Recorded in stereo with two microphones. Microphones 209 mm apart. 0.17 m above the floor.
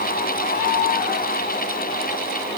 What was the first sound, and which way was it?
Only background noise.